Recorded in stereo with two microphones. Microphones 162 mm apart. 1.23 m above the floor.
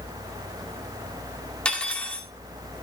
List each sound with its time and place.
1.6 s cutlery clinking: 5° left (ahead or behind), 2.0 m